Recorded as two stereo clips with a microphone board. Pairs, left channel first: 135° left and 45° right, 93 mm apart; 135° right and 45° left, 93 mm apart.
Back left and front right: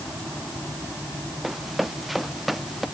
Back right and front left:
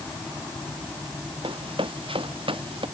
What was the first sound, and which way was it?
Running footsteps, 45° left.